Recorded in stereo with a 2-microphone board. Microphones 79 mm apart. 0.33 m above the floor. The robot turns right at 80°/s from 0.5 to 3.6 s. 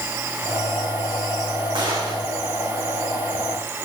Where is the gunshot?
105° right, 9.5 m; by 2.3 s 65° right, 9.5 m.